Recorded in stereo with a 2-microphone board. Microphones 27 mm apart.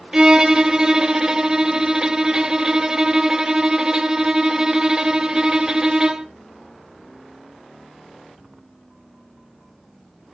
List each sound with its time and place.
0.1 s a violin: 25° right (ahead or behind), 0.6 m